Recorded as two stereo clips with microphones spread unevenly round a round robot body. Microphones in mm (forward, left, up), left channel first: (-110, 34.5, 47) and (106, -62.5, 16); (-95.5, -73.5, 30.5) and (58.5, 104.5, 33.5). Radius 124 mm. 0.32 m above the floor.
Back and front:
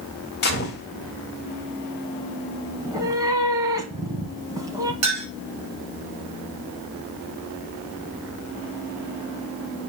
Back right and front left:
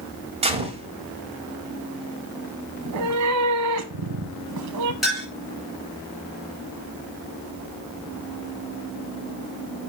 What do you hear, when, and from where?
0.4 s a gunshot: 110° left, 1.9 m
2.8 s a cat meowing: 50° left, 1.2 m
5.0 s a clink: 40° right, 5 m